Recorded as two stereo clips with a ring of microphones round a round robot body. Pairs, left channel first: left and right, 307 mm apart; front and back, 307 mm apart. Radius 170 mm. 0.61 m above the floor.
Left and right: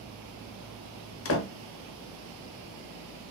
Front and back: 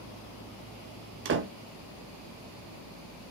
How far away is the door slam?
About 0.7 m.